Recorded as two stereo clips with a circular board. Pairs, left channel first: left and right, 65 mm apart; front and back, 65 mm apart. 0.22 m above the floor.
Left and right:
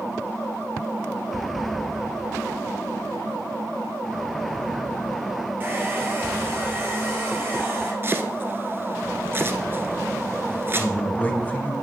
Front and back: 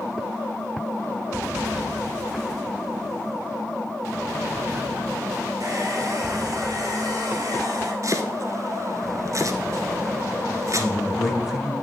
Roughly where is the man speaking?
Left.